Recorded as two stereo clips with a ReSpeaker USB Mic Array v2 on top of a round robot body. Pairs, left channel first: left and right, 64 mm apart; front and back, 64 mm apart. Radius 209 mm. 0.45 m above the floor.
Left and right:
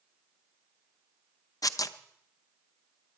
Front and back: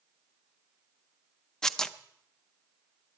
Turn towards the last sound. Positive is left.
turn(degrees=80)